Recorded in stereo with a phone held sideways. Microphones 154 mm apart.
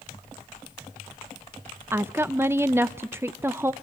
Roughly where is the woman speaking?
Centre.